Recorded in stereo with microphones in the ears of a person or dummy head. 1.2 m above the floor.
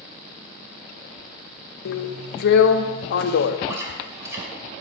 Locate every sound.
1.9 s a drill: 70° left (ahead or behind), 0.6 m
3.7 s chewing: 15° right (ahead or behind), 2.5 m